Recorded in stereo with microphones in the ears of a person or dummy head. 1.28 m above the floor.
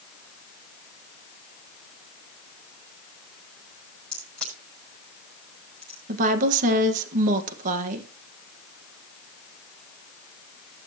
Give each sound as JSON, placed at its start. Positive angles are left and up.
{"t": 4.1, "sound": "a crack", "side_deg": 5, "distance_m": 8.0}
{"t": 6.1, "sound": "a woman speaking", "side_deg": -45, "distance_m": 1.5}